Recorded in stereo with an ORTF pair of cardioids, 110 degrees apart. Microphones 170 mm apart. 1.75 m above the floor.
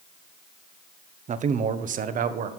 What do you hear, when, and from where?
1.3 s a man speaking: 45° right, 1.1 m; by 2.5 s 55° right, 1.7 m